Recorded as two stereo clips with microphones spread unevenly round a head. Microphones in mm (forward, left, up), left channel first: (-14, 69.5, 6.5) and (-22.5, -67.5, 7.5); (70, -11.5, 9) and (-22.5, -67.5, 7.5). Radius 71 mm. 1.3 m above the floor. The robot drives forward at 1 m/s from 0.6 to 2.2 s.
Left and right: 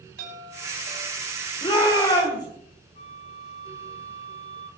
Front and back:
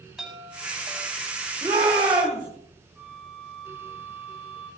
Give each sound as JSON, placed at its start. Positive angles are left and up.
{"t": 0.2, "sound": "a chime", "azimuth_deg": -65, "distance_m": 7.5}
{"t": 1.6, "sound": "a shout", "azimuth_deg": 145, "distance_m": 4.5}
{"t": 3.0, "sound": "a flute", "azimuth_deg": 125, "distance_m": 4.5}